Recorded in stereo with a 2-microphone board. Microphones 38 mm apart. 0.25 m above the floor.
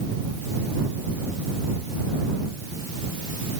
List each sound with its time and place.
Only background noise.